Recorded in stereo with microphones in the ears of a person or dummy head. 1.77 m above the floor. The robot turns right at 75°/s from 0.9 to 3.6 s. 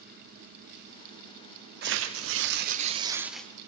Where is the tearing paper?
120° right, 1.2 m; by 3.5 s 5° left, 1.2 m.